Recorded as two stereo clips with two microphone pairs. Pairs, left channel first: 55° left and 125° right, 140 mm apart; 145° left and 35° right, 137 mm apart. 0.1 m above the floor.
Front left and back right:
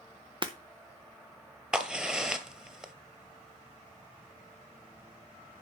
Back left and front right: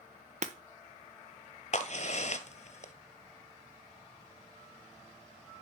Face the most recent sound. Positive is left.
turn(degrees=150)